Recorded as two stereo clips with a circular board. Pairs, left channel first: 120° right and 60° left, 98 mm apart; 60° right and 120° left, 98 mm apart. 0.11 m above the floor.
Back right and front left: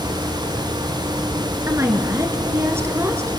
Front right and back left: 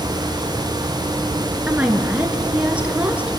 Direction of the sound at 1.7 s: 60° left.